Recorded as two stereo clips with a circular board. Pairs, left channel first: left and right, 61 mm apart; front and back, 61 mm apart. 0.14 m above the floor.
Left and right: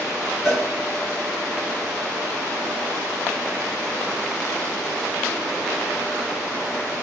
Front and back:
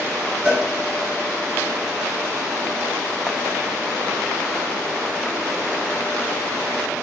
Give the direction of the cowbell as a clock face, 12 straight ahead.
6 o'clock.